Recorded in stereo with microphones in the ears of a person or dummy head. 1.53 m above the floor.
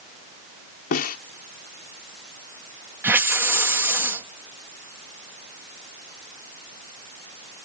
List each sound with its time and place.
0.9 s a snare drum: 50° left (ahead or behind)
3.0 s a hiss: 10° right (ahead or behind)